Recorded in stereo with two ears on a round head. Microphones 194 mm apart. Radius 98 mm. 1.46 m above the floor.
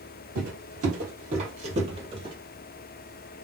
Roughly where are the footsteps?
Right.